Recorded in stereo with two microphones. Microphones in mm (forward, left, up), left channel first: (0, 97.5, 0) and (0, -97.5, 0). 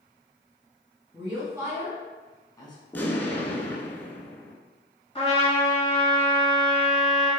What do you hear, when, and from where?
1.1 s a woman speaking: 30° right (ahead or behind), 1.3 m; by 2.8 s 25° left (ahead or behind), 1.1 m
2.9 s an explosion: 10° left (ahead or behind), 0.7 m
5.2 s a trumpet: 30° left (ahead or behind), 1.7 m